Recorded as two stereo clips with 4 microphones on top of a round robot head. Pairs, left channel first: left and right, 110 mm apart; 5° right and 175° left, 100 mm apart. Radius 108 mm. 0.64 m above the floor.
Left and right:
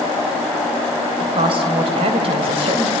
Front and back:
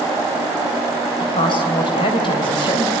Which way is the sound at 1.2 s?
50° right.